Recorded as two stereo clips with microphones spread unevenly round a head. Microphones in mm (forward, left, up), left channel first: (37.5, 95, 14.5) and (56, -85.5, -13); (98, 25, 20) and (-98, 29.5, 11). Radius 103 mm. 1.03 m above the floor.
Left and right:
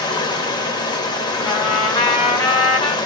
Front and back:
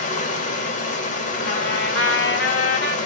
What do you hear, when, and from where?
0.0 s running water: 40° left, 1.1 m
1.4 s a trumpet: 35° left, 2.0 m